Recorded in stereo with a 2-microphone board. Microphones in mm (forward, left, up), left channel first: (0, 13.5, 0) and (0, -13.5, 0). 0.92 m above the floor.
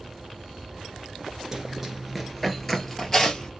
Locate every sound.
1.5 s running footsteps: 25° right (ahead or behind), 0.9 m; by 3.5 s 20° left (ahead or behind), 1.4 m